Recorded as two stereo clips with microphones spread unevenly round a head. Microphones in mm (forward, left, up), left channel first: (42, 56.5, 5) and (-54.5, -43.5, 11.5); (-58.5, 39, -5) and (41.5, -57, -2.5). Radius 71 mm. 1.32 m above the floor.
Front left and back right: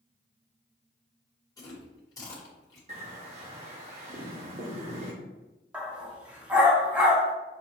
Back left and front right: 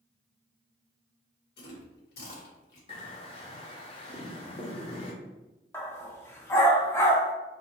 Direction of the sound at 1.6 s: 110° left.